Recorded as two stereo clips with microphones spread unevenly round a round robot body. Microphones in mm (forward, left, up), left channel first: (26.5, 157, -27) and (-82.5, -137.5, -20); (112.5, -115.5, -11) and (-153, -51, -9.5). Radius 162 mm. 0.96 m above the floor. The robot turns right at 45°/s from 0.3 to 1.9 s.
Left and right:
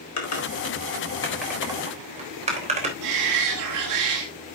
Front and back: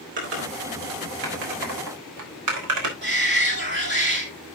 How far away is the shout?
About 2.5 m.